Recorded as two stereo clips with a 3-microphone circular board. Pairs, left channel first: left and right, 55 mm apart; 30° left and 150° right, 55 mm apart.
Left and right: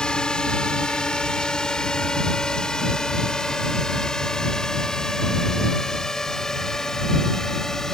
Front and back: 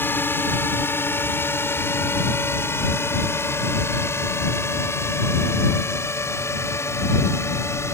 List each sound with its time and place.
0.0 s a drone: 25° left; by 8.0 s 10° left